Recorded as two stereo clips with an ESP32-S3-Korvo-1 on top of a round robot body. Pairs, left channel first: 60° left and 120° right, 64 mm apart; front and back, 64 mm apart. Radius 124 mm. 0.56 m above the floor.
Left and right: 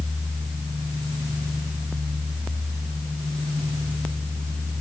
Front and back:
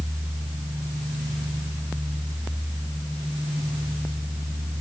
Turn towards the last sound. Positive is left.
No sound to turn to.